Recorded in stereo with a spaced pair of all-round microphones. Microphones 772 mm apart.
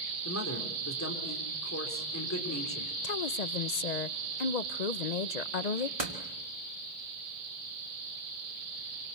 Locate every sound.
0.2 s a man speaking: 20° left (ahead or behind), 3.5 m
3.0 s a woman speaking: 60° left (ahead or behind), 0.8 m
6.0 s a door slam: 45° right (ahead or behind), 2.5 m